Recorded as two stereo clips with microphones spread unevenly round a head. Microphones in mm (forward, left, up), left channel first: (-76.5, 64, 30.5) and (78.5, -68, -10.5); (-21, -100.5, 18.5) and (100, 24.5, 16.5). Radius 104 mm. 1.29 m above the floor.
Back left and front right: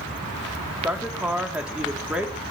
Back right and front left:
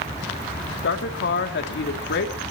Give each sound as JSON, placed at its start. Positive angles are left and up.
{"t": 0.8, "sound": "a woman speaking", "azimuth_deg": -125, "distance_m": 3.0}